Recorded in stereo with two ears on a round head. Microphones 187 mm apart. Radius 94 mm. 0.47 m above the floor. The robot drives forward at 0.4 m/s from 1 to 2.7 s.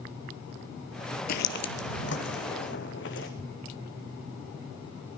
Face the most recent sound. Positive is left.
turn(degrees=50)  # may be behind; listen again after turning